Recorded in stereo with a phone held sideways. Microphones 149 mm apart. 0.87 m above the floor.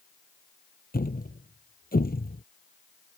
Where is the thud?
80° left.